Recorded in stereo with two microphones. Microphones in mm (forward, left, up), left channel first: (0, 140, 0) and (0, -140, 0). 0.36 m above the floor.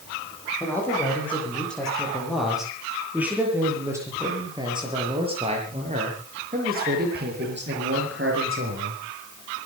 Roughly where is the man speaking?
Centre.